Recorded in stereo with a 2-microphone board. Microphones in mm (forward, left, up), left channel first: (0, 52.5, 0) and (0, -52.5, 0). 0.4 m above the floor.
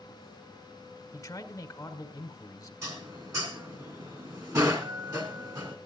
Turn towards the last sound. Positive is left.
turn(degrees=-30)  # may be behind; listen again after turning